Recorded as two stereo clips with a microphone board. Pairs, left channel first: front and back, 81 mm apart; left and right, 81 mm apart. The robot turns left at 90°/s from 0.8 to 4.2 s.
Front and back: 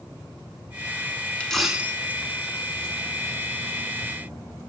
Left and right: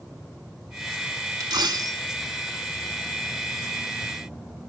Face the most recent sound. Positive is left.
turn(degrees=35)